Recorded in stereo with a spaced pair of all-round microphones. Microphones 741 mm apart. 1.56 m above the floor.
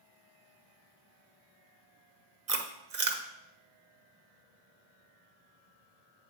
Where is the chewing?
50° right (ahead or behind), 1.0 m.